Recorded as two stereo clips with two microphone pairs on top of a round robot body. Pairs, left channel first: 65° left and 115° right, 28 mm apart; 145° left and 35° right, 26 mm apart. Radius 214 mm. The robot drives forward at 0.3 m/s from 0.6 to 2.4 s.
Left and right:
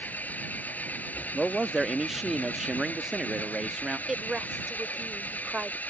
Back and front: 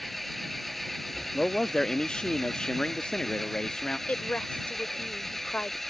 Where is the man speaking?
175° right; by 4.0 s straight behind.